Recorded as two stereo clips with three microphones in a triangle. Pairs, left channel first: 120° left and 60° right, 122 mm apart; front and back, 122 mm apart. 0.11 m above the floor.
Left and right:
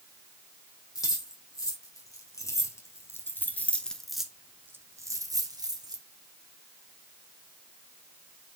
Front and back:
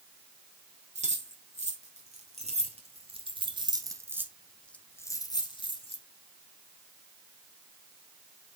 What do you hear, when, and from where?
0.9 s keys jangling: straight behind, 3.5 m; by 6.0 s 15° right, 1.8 m